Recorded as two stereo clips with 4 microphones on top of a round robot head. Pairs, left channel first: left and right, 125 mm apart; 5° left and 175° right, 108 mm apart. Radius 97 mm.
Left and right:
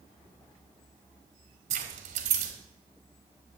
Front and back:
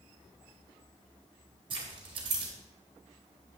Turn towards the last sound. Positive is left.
turn(degrees=-125)